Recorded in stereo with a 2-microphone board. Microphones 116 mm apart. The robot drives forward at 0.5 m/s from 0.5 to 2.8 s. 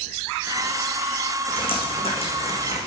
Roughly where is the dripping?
Left.